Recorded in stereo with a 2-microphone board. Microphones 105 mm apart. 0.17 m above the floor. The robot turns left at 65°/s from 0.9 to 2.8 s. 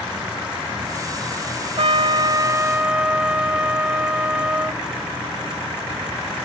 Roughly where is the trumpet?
Right.